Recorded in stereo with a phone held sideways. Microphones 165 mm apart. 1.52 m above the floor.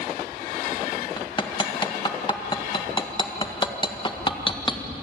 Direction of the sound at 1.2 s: 30° left (ahead or behind).